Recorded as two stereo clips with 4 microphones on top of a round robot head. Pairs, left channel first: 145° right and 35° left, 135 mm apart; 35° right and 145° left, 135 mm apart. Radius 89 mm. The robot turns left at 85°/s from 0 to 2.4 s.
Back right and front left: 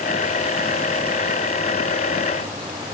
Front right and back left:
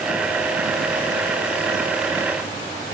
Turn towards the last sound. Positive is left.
No sound to turn to.